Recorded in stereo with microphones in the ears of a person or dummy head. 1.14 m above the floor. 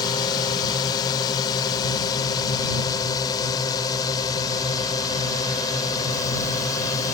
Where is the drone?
30° left (ahead or behind); by 7.1 s 25° left (ahead or behind).